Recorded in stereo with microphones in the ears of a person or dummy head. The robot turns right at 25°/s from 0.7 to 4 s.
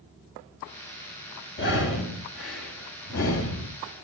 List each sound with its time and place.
1.6 s breathing: 60° left (ahead or behind), 5 m; by 3.7 s 65° left (ahead or behind), 5 m